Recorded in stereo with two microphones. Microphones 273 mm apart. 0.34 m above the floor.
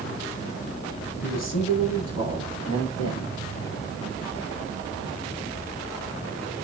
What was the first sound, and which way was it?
A man speaking, 70° left (ahead or behind).